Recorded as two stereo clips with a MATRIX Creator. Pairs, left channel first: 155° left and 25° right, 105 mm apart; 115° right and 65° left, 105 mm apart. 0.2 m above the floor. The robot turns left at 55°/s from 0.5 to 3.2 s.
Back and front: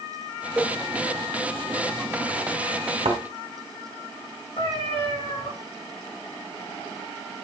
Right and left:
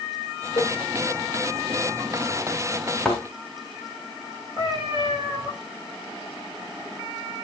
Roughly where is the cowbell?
Right.